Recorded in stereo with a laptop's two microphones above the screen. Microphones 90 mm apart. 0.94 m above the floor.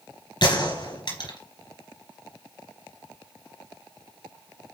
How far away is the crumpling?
I don't hear crumpling.